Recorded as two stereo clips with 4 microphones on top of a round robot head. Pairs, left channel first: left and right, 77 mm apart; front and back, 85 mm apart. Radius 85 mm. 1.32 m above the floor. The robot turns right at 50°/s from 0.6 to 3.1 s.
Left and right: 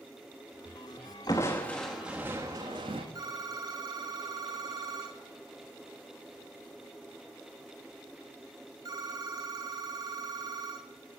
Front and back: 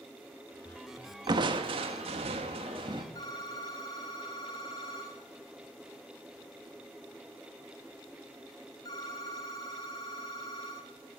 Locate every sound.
1.3 s crushing: 145° left, 1.1 m; by 3.0 s 125° right, 1.1 m
3.1 s a phone ringing: 55° right, 1.4 m